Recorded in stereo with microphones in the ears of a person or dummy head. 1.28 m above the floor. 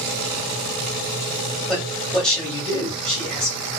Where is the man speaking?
5° left (ahead or behind), 1.4 m.